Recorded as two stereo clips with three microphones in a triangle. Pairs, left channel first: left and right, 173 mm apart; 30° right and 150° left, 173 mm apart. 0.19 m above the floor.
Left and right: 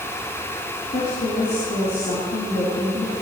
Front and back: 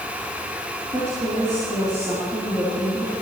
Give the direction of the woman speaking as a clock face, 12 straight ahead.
9 o'clock.